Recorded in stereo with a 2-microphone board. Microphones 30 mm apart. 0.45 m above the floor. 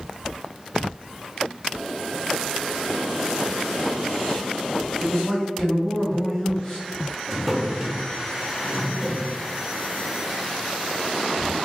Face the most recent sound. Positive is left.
turn(degrees=-10)  # may be behind; listen again after turning